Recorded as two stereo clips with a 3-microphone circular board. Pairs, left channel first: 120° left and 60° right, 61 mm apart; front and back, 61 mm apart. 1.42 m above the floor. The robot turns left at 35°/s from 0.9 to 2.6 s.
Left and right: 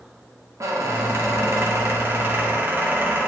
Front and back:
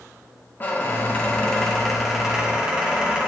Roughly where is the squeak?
Ahead right.